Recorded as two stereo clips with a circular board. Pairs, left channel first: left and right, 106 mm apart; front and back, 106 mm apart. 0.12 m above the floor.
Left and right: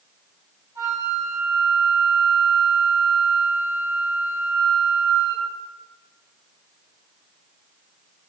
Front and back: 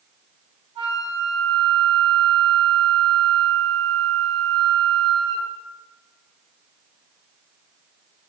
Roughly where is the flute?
Behind right.